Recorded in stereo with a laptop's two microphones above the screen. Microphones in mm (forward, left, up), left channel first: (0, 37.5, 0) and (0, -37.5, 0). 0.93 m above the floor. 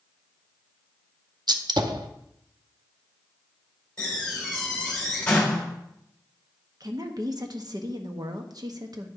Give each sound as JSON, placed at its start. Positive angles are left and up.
{"t": 1.5, "sound": "a gunshot", "side_deg": -65, "distance_m": 0.6}
{"t": 4.0, "sound": "a door slam", "side_deg": 15, "distance_m": 2.5}
{"t": 6.8, "sound": "a woman speaking", "side_deg": -55, "distance_m": 1.0}